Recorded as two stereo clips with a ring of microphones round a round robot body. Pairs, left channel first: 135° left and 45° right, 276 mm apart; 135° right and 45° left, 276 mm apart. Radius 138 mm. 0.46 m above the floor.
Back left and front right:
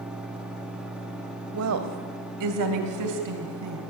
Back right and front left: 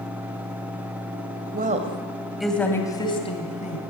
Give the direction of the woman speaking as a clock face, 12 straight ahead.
12 o'clock.